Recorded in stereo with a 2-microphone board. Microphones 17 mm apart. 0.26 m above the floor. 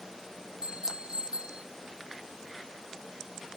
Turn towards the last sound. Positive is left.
turn(degrees=-65)  # may be behind; listen again after turning